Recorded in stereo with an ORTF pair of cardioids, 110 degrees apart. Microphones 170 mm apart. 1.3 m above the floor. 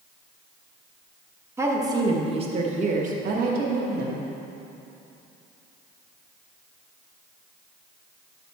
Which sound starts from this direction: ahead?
A woman speaking, at 1.6 s.